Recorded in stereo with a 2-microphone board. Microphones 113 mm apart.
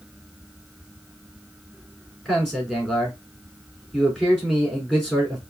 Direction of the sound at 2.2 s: 5° left (ahead or behind).